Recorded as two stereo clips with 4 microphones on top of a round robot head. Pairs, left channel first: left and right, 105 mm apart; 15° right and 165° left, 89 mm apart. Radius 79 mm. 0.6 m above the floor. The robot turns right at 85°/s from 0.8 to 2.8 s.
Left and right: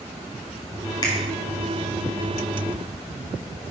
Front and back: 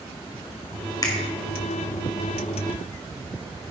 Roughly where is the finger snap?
Ahead left.